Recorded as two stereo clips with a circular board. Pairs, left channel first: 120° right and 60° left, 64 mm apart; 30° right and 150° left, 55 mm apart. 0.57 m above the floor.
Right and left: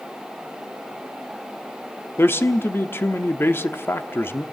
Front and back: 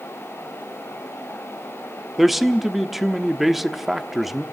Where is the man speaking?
125° right, 1.1 m.